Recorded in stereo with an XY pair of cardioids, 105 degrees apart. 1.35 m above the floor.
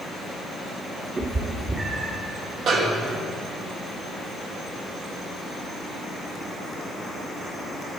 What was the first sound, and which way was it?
A cat meowing, 35° right.